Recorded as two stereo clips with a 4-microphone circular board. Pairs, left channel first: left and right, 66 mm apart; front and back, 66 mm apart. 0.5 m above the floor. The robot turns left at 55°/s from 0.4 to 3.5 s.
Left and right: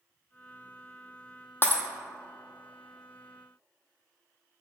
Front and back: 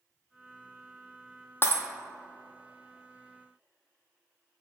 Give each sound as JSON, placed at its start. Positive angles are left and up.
{"t": 1.6, "sound": "breaking glass", "azimuth_deg": 45, "distance_m": 0.8}